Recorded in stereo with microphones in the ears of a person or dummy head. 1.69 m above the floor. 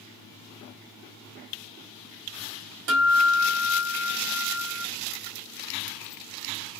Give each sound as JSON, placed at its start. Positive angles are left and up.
{"t": 2.9, "sound": "a guitar", "side_deg": -50, "distance_m": 1.8}